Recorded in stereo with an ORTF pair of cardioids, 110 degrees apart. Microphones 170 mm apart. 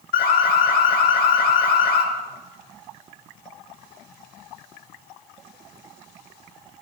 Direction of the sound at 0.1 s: 65° left.